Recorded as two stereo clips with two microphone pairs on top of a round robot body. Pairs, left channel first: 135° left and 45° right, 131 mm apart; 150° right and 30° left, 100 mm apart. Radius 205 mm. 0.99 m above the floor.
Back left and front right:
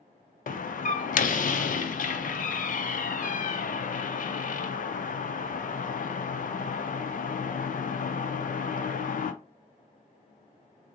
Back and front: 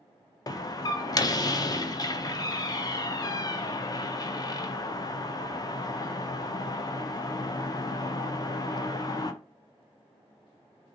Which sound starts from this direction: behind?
A door slam, at 0.5 s.